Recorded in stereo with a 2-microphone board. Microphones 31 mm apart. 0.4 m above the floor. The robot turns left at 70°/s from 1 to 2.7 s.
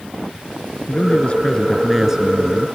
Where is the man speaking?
60° left; by 2.8 s 60° right.